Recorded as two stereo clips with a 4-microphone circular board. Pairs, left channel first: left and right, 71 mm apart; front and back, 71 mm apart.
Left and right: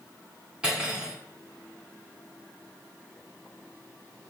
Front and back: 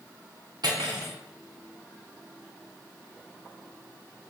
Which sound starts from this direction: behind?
Cutlery clinking, at 0.6 s.